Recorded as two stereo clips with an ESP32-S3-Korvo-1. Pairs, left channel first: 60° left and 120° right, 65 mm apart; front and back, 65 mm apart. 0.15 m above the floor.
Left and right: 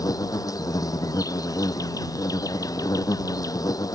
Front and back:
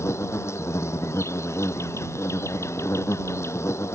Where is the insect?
40° left.